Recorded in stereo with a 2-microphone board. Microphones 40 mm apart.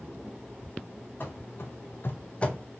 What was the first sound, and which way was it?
Running footsteps, 50° left (ahead or behind).